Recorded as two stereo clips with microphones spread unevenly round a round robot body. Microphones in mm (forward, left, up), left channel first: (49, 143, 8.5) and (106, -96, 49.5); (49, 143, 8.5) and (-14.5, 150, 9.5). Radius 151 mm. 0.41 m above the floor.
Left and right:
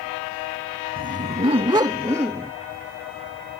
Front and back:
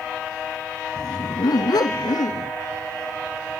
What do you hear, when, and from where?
1.0 s a dog barking: 20° right; by 2.5 s 5° left